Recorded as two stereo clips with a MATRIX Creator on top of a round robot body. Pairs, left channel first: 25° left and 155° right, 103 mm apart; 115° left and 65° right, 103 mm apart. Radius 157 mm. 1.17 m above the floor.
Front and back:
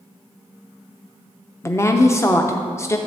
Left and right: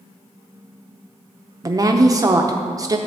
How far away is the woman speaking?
About 0.7 m.